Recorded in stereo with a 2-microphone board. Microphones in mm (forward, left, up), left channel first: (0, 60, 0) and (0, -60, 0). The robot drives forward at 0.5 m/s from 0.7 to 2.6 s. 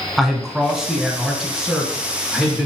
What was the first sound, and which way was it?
A man speaking, 5° right (ahead or behind).